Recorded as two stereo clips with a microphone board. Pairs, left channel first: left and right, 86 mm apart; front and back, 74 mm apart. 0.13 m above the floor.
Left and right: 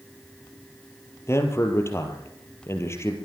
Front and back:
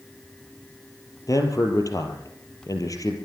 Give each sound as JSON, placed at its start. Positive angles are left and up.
{"t": 1.3, "sound": "a man speaking", "azimuth_deg": 35, "distance_m": 3.5}